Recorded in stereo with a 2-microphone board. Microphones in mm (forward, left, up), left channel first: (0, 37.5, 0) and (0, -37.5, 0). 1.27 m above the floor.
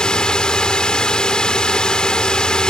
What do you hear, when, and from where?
0.0 s a drone: 10° left (ahead or behind)